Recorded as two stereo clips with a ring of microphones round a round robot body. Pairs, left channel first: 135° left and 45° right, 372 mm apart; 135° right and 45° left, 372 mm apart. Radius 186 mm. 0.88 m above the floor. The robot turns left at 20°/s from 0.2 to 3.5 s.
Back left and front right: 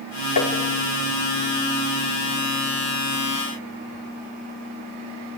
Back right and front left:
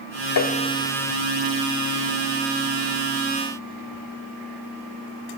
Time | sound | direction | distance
0.4 | tapping | straight behind | 1.6 m